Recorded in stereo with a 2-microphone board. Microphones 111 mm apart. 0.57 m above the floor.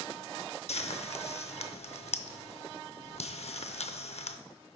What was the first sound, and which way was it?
Frying, 70° left (ahead or behind).